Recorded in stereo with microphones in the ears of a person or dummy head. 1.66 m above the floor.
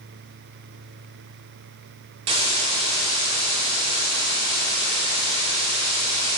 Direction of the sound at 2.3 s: 30° right (ahead or behind).